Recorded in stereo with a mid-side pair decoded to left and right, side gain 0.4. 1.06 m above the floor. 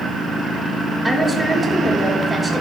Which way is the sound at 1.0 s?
20° right.